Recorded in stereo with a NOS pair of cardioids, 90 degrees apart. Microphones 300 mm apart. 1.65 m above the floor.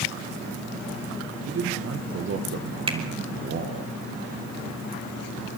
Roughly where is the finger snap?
Ahead.